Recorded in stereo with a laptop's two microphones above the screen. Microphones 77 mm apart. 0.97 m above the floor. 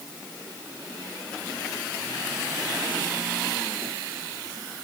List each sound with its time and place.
Only background noise.